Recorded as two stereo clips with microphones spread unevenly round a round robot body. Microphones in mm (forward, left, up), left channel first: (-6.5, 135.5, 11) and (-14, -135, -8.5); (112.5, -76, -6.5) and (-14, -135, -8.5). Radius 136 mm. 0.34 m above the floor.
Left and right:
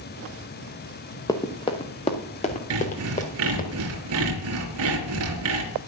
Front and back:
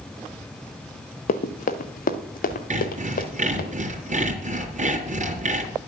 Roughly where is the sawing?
Behind right.